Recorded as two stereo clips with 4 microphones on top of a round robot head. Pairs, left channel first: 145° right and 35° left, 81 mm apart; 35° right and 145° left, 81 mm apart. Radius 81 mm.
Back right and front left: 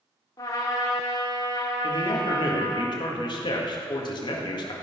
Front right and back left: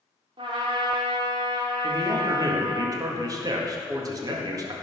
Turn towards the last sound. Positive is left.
turn(degrees=-175)